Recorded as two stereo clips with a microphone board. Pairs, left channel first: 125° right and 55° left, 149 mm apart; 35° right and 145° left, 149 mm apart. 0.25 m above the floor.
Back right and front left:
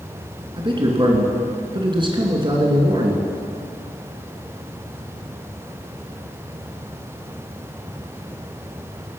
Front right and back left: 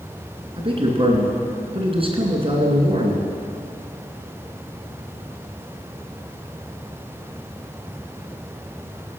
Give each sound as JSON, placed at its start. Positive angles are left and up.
{"t": 0.6, "sound": "a man speaking", "azimuth_deg": 105, "distance_m": 2.5}